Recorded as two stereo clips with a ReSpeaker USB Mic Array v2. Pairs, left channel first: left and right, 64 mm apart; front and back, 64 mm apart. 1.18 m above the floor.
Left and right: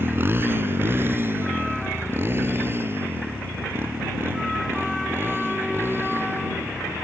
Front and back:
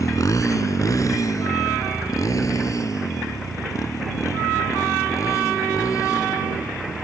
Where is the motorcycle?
35° right.